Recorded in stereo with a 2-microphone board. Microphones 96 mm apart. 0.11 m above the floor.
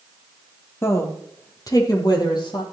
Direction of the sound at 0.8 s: 25° left (ahead or behind).